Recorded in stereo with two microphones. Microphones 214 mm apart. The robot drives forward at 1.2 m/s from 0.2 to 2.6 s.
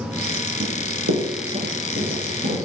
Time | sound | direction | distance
0.6 | running footsteps | 50° right (ahead or behind) | 1.7 m